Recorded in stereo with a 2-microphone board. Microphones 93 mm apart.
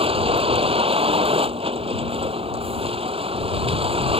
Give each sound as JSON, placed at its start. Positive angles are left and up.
{"t": 0.0, "sound": "a vehicle", "side_deg": -90}